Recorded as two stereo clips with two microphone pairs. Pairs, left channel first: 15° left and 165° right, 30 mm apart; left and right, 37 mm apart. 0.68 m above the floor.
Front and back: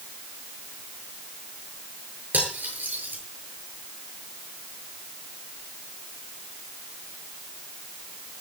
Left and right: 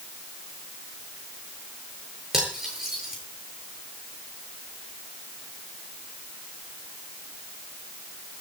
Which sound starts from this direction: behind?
Cutlery clinking, at 2.3 s.